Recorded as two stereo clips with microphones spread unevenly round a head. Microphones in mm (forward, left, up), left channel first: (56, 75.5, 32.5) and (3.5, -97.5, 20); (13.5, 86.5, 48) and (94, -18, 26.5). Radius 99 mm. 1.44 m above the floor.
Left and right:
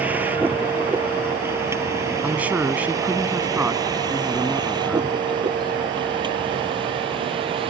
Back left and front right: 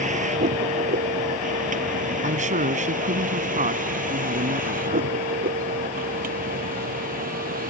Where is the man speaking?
25° right.